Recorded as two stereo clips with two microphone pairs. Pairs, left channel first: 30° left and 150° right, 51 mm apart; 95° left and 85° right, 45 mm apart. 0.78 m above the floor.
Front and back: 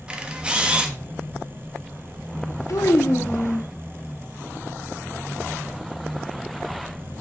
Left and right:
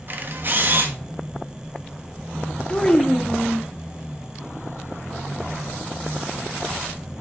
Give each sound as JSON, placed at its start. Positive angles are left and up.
{"t": 0.1, "sound": "a camera shutter", "azimuth_deg": -90, "distance_m": 1.1}
{"t": 2.7, "sound": "a child speaking", "azimuth_deg": 35, "distance_m": 0.8}